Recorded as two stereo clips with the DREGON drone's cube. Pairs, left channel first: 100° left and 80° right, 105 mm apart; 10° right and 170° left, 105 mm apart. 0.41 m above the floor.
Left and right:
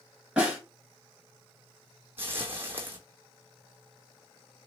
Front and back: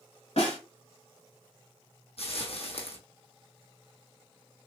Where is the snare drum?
Straight ahead, 1.4 m.